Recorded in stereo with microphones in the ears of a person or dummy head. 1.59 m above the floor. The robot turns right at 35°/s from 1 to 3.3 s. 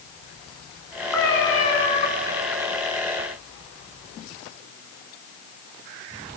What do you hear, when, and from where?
1.1 s a cat meowing: 15° left, 1.5 m; by 2.1 s 50° left, 1.5 m